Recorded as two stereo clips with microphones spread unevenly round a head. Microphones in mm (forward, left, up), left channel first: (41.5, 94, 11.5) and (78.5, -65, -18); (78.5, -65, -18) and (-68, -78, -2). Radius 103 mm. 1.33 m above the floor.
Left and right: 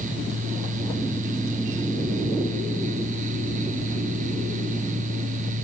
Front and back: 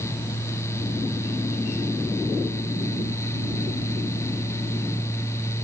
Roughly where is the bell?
No bell in this recording.